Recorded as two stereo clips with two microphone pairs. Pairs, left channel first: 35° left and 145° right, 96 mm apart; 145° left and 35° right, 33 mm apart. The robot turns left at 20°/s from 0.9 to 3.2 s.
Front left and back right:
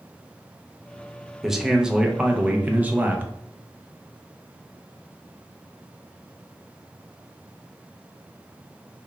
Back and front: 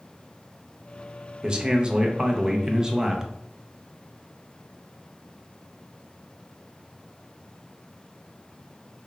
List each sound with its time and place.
1.4 s a man speaking: 60° right, 0.5 m; by 3.3 s 95° right, 0.5 m